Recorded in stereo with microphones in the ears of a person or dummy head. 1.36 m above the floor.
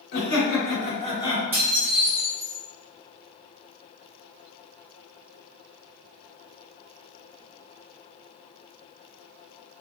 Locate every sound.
0.1 s laughter: 65° left (ahead or behind), 1.2 m; by 1.4 s 25° left (ahead or behind), 1.1 m
1.5 s dishes clattering: 5° right (ahead or behind), 0.8 m